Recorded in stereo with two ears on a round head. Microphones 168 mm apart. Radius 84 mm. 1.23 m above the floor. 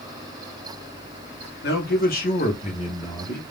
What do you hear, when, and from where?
1.6 s a man speaking: 60° left (ahead or behind), 1.1 m; by 3.4 s 15° left (ahead or behind), 1.0 m